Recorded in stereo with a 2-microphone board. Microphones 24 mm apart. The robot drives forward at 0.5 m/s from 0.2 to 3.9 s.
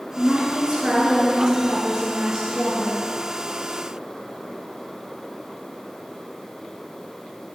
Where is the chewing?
I don't hear chewing.